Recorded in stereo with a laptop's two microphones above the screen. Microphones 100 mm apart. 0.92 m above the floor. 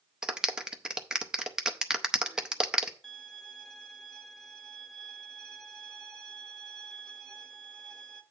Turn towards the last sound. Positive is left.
turn(degrees=5)  # may be behind; listen again after turning